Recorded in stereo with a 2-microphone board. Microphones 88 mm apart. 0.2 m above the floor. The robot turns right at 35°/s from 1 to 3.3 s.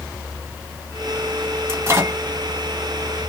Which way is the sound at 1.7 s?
30° right (ahead or behind).